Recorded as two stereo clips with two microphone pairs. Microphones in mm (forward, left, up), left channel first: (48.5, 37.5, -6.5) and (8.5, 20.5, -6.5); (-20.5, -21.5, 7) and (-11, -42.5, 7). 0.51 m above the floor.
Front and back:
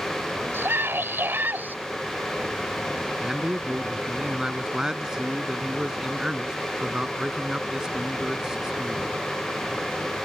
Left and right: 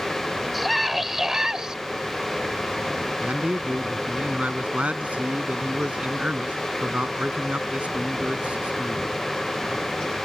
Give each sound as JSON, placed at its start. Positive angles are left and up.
{"t": 0.5, "sound": "a scream", "azimuth_deg": -150}
{"t": 3.2, "sound": "a man speaking", "azimuth_deg": -80}